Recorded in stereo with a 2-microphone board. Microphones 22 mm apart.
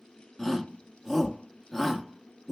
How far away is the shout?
About 1.1 m.